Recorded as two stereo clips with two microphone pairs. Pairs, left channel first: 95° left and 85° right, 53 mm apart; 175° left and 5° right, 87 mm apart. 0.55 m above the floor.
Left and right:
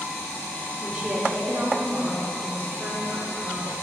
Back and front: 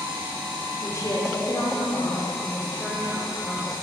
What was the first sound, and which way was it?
A woman speaking, 155° right.